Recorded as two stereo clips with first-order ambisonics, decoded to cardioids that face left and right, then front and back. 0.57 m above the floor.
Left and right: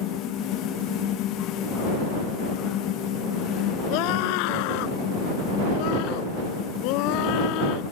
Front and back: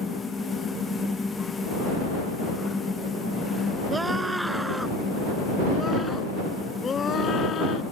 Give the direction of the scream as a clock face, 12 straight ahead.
9 o'clock.